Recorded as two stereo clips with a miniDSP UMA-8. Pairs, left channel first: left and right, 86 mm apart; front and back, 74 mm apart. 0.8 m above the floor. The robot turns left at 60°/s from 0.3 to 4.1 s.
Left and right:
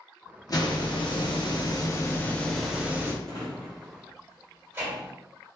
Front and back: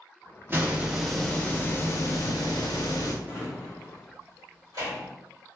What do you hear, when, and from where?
0.5 s a hiss: 125° left, 0.6 m; by 3.1 s 30° right, 0.6 m
3.2 s a drawer: 100° right, 1.8 m; by 5.1 s 155° right, 1.8 m